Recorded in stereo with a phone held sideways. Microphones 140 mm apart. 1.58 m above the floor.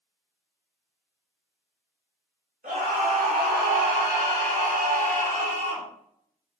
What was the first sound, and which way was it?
A scream, 70° right (ahead or behind).